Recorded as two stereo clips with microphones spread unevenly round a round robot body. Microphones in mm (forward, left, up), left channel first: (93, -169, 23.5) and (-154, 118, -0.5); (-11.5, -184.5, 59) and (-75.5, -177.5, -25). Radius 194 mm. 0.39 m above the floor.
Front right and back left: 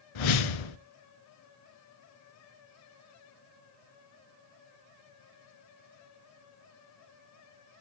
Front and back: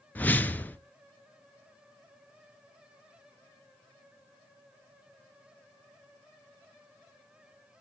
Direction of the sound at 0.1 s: 55° right.